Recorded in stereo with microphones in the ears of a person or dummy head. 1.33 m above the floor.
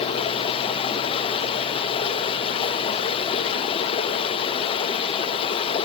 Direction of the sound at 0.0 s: 30° left (ahead or behind).